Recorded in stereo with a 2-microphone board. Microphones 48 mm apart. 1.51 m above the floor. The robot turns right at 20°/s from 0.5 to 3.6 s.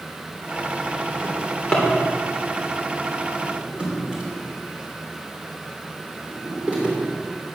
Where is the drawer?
20° left (ahead or behind), 3 m; by 7.0 s 25° right (ahead or behind), 3 m.